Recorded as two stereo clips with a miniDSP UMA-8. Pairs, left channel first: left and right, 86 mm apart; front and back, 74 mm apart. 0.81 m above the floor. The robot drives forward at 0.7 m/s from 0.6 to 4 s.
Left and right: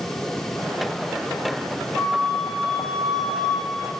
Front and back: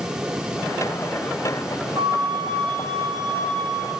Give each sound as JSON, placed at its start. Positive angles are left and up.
{"t": 1.9, "sound": "a flute", "azimuth_deg": 175, "distance_m": 5.5}